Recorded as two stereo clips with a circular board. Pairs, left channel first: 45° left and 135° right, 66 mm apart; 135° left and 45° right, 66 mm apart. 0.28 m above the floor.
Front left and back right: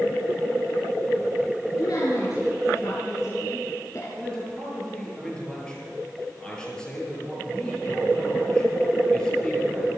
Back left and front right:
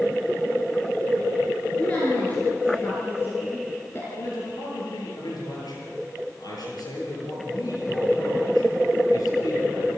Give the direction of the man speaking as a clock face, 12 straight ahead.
8 o'clock.